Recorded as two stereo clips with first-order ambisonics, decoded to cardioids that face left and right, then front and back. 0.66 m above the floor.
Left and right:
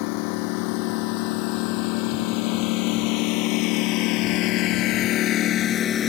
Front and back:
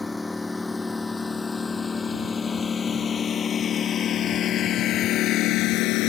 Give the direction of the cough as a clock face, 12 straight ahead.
No cough in this recording.